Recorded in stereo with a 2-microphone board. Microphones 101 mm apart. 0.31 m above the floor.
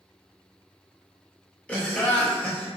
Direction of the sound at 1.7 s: 15° left (ahead or behind).